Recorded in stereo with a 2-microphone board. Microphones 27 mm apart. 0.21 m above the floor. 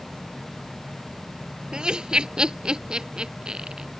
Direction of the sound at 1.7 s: 35° right (ahead or behind).